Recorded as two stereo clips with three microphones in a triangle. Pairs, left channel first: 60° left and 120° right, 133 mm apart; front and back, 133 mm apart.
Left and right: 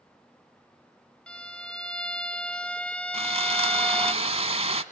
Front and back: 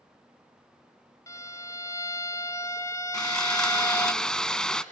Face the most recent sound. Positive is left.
turn(degrees=-85)